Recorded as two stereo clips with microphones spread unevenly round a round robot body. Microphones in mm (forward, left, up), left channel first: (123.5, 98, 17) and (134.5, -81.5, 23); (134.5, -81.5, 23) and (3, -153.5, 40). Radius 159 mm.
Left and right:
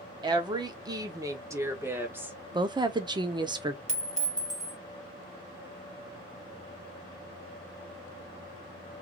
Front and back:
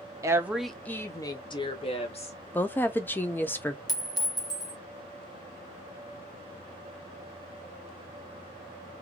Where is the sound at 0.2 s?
100° right, 0.7 m; by 2.4 s 5° right, 1.5 m.